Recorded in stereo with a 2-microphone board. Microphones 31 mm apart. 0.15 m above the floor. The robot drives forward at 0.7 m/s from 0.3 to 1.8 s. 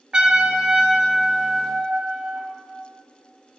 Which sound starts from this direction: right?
A trumpet, at 0.1 s.